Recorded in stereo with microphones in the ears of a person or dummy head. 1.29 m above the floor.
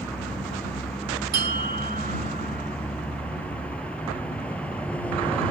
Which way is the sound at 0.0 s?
5° left (ahead or behind).